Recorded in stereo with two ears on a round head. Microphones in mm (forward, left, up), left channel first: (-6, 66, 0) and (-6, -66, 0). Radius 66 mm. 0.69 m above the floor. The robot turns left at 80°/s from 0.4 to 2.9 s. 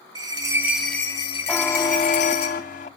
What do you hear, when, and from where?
0.1 s a bell: 150° right, 2.5 m; by 2.5 s 40° left, 2.5 m
1.5 s a buzzer: 175° left, 0.6 m; by 2.9 s 60° left, 0.6 m